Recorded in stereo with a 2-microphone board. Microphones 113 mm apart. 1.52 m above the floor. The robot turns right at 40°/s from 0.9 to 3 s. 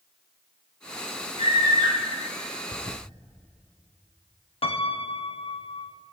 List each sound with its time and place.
1.4 s a scream: 65° right (ahead or behind), 5 m; by 2.0 s 40° right (ahead or behind), 5 m
2.7 s a toilet flushing: 60° left (ahead or behind), 0.6 m; by 3.0 s 70° left (ahead or behind), 0.6 m
4.6 s a piano: 60° left (ahead or behind), 0.7 m